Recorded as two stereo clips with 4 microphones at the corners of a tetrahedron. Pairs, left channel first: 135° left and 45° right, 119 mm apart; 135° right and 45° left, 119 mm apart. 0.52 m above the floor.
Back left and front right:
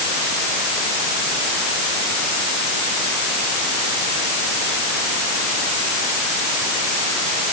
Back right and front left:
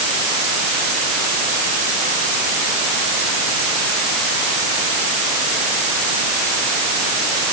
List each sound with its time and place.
Only background noise.